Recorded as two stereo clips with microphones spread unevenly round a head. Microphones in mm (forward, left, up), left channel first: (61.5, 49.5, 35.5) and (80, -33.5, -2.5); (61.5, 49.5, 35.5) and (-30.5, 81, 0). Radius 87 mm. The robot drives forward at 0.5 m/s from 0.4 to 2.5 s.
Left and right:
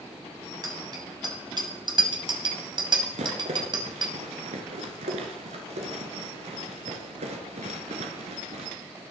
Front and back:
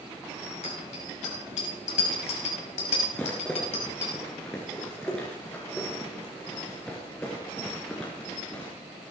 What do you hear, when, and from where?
0.6 s a bicycle bell: 35° right, 5.5 m; by 4.1 s 45° right, 4.5 m
3.1 s a rattle: 95° right, 3 m